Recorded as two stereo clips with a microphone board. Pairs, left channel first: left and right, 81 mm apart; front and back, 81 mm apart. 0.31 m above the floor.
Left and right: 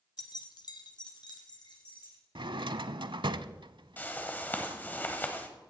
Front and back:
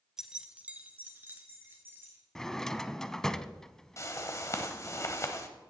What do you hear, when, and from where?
0.2 s keys jangling: 95° left, 1.1 m; by 2.2 s 115° left, 4 m
2.4 s a drawer: 85° right, 0.5 m
4.0 s a whoosh: 30° left, 1.4 m